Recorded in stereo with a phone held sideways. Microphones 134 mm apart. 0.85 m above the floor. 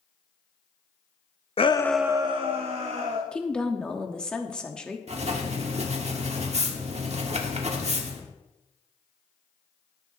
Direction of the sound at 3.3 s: 10° left (ahead or behind).